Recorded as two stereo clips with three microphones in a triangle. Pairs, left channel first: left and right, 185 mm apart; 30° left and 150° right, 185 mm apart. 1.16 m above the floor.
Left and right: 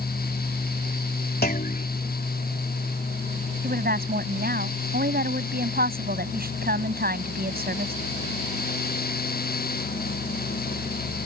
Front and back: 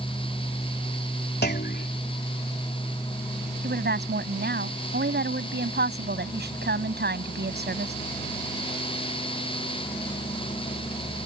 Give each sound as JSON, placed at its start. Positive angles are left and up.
{"t": 1.4, "sound": "a clunk", "azimuth_deg": 60}
{"t": 3.6, "sound": "a woman speaking", "azimuth_deg": -125}